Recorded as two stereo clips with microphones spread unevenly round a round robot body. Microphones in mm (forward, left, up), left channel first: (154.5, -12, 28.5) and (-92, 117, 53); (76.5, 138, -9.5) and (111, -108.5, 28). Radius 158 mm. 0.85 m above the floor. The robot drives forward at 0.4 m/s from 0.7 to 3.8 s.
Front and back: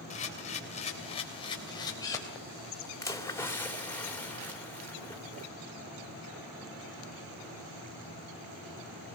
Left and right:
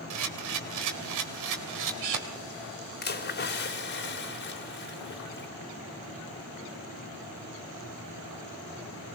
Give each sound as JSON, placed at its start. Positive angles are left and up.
{"t": 0.1, "sound": "a camera shutter", "azimuth_deg": -95, "distance_m": 3.0}
{"t": 3.0, "sound": "a splash", "azimuth_deg": 50, "distance_m": 3.0}